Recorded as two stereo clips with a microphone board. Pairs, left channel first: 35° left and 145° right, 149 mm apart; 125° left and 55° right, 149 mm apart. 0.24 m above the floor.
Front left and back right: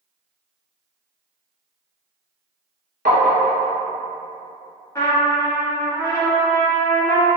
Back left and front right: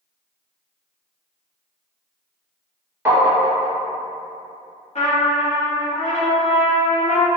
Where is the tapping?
130° right, 0.8 m.